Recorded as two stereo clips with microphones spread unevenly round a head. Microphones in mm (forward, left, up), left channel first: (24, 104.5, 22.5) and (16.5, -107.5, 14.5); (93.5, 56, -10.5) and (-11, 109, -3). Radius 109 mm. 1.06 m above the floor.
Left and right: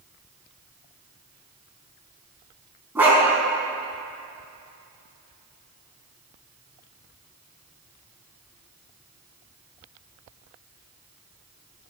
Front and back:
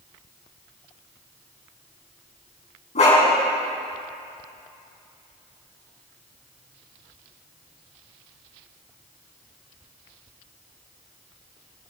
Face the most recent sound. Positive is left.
turn(degrees=-10)